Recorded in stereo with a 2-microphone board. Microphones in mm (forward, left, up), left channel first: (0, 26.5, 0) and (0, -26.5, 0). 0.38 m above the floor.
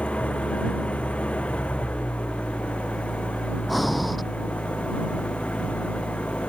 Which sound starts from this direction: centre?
Breathing, at 3.7 s.